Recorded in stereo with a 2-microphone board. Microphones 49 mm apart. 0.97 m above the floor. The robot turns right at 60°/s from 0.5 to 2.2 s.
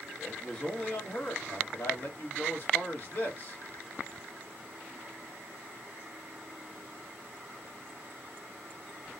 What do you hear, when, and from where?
0.2 s a man speaking: 20° left, 1.2 m; by 3.6 s 120° left, 1.2 m